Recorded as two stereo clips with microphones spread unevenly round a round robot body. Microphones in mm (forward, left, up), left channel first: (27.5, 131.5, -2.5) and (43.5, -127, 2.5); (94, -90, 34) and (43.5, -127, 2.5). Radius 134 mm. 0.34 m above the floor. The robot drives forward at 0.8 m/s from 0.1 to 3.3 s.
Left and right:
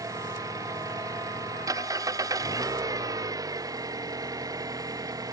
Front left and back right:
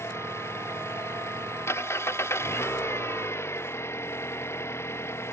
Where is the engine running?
10° right.